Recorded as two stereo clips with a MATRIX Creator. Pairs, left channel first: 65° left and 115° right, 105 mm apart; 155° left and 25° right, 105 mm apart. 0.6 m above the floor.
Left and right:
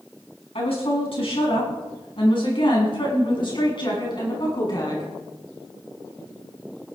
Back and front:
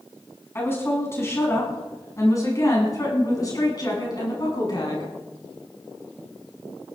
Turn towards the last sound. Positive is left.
turn(degrees=115)